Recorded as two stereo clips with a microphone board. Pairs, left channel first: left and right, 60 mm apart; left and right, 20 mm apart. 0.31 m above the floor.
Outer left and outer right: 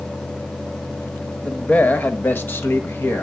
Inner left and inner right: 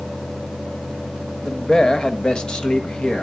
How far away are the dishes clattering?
No dishes clattering in this recording.